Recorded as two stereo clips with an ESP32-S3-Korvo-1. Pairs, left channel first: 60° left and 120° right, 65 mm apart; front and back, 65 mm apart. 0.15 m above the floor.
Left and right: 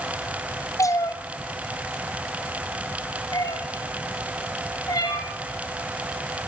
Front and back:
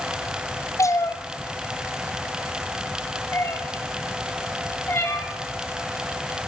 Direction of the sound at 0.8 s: 30° left.